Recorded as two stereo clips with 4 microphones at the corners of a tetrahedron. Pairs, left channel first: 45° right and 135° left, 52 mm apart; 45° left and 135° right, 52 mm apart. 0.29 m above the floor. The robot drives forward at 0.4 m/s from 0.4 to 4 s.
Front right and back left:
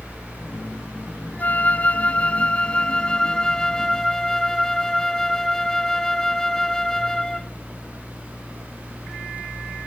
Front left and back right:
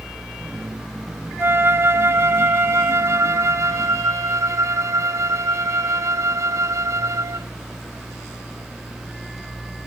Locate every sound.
1.4 s a flute: 100° right; by 7.5 s 125° right